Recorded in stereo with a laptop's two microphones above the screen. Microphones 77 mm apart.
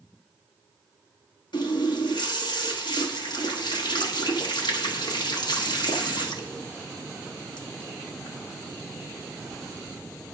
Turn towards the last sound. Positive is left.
turn(degrees=85)